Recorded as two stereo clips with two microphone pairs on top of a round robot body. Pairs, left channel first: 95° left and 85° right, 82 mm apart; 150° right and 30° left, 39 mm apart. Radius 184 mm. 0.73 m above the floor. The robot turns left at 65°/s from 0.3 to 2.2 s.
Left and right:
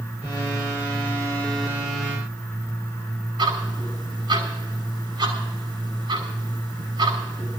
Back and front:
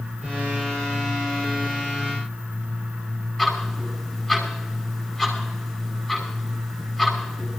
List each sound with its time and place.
3.4 s ticking: 75° right, 5.5 m